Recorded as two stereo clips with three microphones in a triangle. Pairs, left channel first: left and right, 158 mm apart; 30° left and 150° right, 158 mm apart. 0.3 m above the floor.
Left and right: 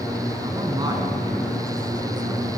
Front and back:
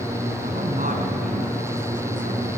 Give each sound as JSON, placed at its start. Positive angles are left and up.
{"t": 0.4, "sound": "a man speaking", "azimuth_deg": -150, "distance_m": 4.0}